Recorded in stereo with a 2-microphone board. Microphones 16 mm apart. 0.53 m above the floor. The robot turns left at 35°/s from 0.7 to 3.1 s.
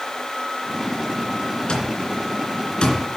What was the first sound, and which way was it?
An alarm clock, 60° left (ahead or behind).